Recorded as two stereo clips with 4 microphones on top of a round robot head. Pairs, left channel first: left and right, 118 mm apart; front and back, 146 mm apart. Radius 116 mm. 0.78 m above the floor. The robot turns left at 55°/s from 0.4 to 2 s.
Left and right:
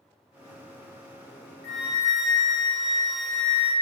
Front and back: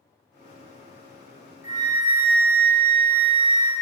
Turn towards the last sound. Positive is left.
turn(degrees=20)